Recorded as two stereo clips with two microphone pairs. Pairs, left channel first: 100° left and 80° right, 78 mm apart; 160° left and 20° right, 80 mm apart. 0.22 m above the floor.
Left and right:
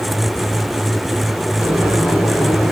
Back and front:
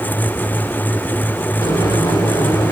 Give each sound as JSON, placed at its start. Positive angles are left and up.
{"t": 1.6, "sound": "boiling", "azimuth_deg": -175, "distance_m": 3.5}